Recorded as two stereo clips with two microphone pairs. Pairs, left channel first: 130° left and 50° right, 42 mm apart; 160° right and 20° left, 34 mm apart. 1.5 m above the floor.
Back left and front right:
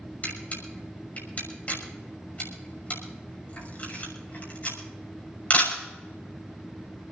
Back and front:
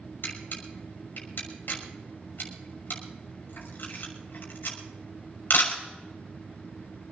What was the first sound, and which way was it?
A camera shutter, straight behind.